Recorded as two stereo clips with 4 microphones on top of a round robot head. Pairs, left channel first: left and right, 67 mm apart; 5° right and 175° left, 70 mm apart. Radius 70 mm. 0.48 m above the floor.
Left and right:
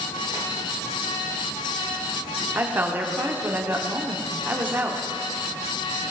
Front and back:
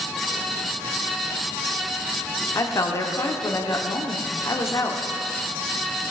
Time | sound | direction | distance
2.5 | a woman speaking | 35° right | 1.1 m